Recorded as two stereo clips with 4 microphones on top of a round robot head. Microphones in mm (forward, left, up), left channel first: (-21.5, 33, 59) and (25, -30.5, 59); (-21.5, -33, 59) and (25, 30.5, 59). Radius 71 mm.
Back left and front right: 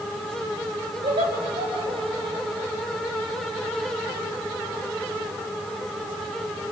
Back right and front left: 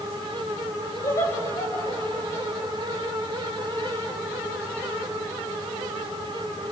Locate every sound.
1.0 s laughter: 75° right, 8 m